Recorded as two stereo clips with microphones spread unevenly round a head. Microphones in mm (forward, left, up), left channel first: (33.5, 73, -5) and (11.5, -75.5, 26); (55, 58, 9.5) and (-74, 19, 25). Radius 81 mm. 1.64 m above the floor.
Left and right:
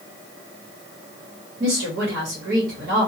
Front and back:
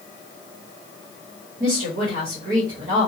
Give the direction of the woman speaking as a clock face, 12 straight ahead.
4 o'clock.